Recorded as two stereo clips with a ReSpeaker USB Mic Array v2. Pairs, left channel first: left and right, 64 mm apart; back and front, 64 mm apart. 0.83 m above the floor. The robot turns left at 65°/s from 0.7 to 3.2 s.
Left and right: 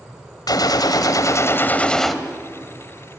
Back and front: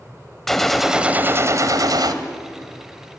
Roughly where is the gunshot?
Left.